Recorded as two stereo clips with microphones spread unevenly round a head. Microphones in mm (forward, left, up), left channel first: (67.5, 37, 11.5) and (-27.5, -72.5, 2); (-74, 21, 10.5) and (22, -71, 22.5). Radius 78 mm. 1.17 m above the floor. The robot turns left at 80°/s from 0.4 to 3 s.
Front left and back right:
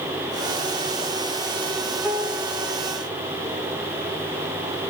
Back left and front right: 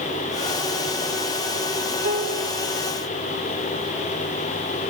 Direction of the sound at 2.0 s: 50° right.